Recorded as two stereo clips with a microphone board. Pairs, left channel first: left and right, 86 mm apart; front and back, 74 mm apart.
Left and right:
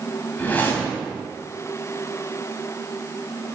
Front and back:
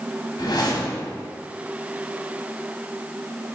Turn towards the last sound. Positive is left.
turn(degrees=20)